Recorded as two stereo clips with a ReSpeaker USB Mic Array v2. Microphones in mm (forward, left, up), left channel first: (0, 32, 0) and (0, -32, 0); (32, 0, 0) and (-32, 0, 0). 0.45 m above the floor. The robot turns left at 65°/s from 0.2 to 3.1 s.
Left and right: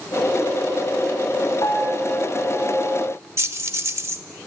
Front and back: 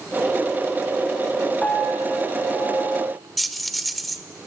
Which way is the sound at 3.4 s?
90° right.